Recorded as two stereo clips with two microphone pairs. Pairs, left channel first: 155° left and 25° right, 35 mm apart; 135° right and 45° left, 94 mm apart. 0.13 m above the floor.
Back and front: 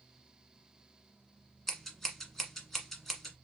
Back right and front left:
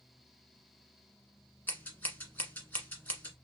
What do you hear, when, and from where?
1.7 s scissors: 145° right, 1.3 m